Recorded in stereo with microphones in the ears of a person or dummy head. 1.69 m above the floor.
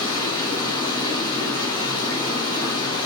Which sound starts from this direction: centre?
Running water, at 0.0 s.